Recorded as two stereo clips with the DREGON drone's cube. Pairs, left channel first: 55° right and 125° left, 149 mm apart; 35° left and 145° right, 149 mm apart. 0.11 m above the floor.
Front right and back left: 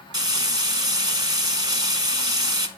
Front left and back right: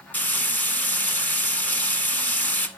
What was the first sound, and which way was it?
Frying, 100° left.